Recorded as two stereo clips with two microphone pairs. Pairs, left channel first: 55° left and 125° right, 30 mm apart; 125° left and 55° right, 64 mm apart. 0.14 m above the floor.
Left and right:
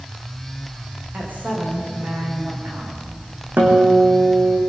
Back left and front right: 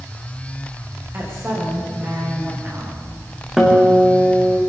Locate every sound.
1.1 s a woman speaking: 105° right, 9 m
3.6 s a guitar: 135° right, 4.5 m